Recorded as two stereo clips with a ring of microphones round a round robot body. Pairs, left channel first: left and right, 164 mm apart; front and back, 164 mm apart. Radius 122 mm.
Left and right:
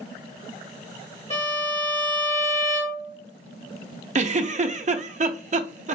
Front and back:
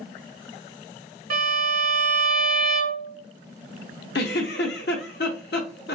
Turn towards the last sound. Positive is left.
turn(degrees=-45)